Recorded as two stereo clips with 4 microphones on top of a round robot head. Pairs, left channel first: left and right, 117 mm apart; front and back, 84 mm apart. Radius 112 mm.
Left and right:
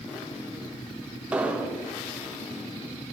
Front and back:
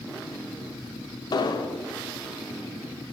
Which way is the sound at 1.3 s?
10° right.